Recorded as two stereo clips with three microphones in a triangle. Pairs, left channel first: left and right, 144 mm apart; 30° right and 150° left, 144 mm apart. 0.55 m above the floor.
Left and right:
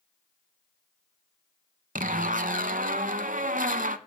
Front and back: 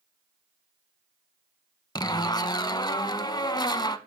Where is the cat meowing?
No cat meowing in this recording.